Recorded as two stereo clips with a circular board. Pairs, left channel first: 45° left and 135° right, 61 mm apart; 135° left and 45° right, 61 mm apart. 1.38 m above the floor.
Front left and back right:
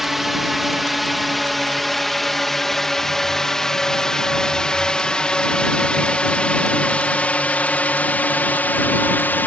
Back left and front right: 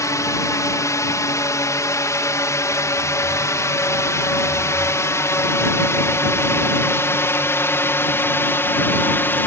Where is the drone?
140° left; by 9.5 s 95° left.